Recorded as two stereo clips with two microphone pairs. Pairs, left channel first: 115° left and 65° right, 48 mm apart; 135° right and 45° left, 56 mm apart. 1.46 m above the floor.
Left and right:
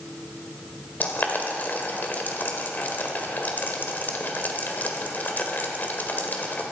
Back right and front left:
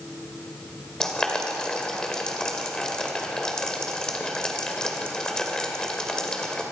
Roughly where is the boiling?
Behind left.